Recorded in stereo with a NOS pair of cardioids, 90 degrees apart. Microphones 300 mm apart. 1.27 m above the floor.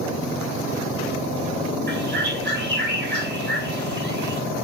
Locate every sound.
1.9 s a bird: 35° right, 6 m